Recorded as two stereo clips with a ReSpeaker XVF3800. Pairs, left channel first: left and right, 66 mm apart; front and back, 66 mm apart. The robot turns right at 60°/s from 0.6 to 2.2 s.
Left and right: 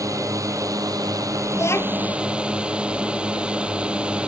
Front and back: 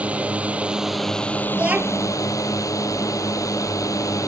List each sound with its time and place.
0.0 s a drone: 115° right; by 4.3 s 20° right
1.5 s a child speaking: 110° left; by 2.1 s 145° left